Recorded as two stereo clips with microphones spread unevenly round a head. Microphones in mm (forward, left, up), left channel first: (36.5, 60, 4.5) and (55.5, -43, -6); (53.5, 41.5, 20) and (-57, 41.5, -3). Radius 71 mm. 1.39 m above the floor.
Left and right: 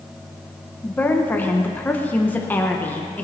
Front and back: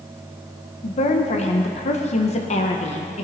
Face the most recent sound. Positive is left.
turn(degrees=25)